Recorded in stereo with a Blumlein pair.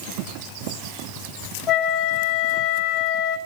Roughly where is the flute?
Ahead left.